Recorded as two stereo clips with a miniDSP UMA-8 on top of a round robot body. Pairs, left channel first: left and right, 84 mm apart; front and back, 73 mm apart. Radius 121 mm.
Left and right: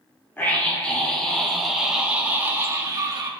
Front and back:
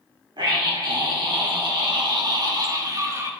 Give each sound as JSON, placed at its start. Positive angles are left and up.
{"t": 0.4, "sound": "a scream", "azimuth_deg": 160, "distance_m": 2.5}